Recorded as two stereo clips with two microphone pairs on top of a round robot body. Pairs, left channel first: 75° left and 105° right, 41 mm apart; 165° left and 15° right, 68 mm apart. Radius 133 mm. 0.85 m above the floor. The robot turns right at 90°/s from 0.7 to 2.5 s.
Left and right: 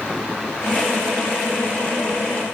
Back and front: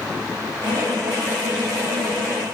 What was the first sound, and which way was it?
Only background noise.